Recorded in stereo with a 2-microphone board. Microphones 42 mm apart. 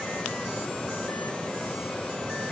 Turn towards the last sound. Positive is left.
No sound to turn to.